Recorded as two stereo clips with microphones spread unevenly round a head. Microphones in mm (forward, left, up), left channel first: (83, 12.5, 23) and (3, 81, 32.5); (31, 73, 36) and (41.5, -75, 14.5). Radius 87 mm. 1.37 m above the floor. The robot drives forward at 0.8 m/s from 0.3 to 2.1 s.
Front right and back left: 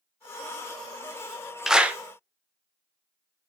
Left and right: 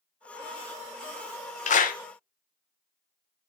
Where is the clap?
55° left, 1.2 m; by 2.0 s 65° left, 1.0 m.